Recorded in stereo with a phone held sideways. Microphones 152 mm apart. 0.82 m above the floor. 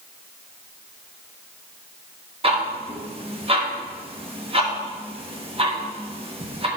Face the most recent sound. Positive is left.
turn(degrees=-40)  # may be behind; listen again after turning